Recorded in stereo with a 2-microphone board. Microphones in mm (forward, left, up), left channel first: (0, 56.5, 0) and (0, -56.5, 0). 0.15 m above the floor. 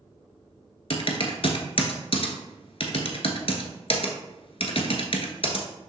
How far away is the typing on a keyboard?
About 1.0 m.